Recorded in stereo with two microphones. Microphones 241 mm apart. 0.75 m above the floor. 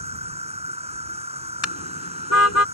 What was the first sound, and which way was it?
An insect, 25° right (ahead or behind).